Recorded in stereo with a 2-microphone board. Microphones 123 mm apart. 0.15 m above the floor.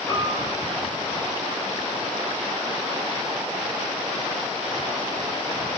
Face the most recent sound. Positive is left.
turn(degrees=45)  # may be behind; listen again after turning